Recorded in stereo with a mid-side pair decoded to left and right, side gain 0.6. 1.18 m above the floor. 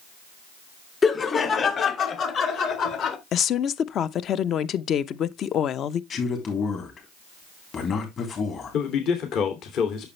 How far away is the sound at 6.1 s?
About 3.5 m.